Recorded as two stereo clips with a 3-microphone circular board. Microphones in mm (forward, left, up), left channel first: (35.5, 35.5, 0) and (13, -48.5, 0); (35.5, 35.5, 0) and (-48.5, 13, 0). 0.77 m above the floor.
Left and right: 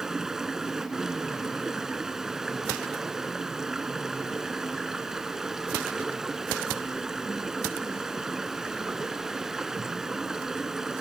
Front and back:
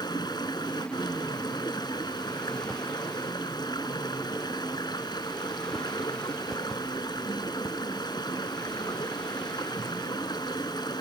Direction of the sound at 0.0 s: 20° right.